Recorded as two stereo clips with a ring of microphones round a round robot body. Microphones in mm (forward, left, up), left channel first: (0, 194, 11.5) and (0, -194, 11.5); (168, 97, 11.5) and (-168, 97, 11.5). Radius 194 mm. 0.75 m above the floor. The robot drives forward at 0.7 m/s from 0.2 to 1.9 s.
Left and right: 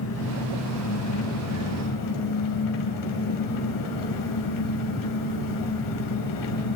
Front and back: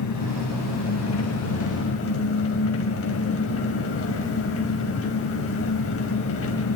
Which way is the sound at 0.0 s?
35° left.